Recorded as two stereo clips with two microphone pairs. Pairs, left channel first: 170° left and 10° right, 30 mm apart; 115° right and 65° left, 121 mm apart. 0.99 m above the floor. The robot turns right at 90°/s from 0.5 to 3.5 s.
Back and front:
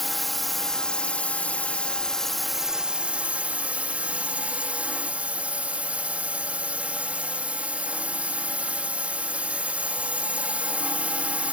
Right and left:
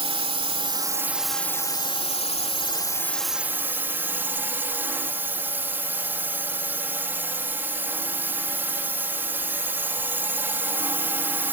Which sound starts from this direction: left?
A drone, at 0.0 s.